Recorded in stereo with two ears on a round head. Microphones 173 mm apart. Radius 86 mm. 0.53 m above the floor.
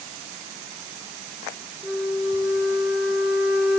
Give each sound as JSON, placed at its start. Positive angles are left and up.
{"t": 1.8, "sound": "a flute", "side_deg": -5, "distance_m": 2.0}